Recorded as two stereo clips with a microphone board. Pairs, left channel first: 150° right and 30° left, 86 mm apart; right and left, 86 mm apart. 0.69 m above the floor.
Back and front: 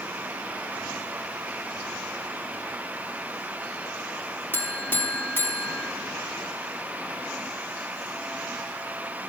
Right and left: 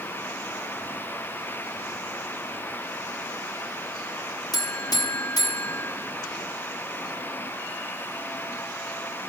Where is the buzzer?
90° right, 1.0 m.